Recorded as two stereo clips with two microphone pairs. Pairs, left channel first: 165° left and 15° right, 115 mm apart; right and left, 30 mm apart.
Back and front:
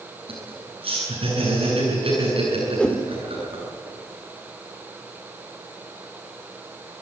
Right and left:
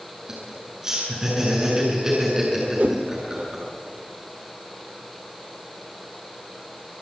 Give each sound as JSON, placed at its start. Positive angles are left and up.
{"t": 0.3, "sound": "laughter", "azimuth_deg": 20, "distance_m": 8.5}
{"t": 2.8, "sound": "a whoosh", "azimuth_deg": 90, "distance_m": 1.7}